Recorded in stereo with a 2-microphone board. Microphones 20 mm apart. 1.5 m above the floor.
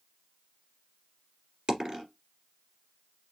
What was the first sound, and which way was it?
A dropped coin, 40° right (ahead or behind).